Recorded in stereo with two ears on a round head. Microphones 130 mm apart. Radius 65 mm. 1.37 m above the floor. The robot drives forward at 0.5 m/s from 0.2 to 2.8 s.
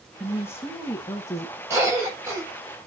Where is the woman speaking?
15° left (ahead or behind), 2.0 m; by 1.6 s 25° left (ahead or behind), 1.3 m.